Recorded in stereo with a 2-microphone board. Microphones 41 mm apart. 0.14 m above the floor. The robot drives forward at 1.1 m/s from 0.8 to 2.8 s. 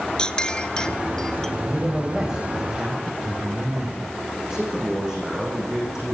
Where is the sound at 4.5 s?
10° right (ahead or behind), 8.5 m.